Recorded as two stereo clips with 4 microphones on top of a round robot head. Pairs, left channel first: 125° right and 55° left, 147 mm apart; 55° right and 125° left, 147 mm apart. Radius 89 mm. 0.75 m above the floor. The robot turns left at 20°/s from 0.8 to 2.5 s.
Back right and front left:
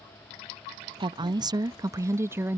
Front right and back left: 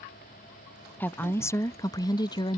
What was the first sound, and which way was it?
A woman speaking, 15° left.